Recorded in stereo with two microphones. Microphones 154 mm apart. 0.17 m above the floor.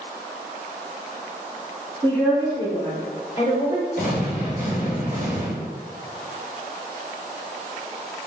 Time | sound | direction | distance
2.0 | a woman speaking | 5° left (ahead or behind) | 1.7 m
4.0 | an explosion | 65° left (ahead or behind) | 1.2 m